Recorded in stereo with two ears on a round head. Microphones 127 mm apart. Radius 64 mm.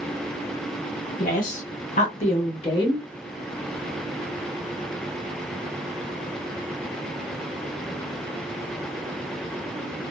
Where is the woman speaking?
55° left (ahead or behind), 1.4 m; by 3.0 s 25° left (ahead or behind), 1.1 m.